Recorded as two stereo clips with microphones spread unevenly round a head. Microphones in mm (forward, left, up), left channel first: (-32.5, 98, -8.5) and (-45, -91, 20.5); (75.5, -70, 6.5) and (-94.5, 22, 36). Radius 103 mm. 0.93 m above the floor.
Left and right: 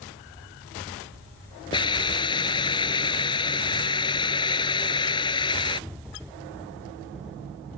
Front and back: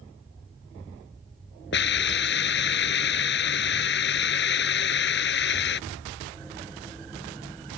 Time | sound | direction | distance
1.7 | a hiss | 15° left | ?